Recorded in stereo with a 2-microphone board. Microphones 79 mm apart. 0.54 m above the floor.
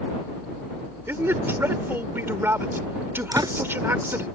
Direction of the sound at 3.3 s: 55° right (ahead or behind).